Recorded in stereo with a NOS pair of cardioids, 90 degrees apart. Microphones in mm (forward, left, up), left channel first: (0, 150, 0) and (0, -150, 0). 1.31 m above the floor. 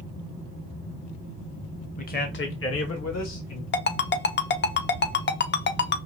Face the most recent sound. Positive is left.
turn(degrees=40)